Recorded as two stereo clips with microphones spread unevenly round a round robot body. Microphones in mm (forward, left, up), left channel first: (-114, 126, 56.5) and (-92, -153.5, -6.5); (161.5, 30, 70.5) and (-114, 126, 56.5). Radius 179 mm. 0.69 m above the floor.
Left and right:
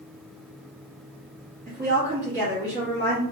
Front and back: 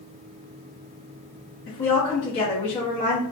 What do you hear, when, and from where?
1.7 s a woman speaking: 50° right, 1.2 m